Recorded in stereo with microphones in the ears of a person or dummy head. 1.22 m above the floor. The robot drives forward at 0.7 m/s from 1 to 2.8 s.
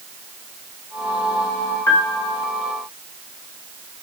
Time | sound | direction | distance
1.9 | a piano | 15° left (ahead or behind) | 2.5 m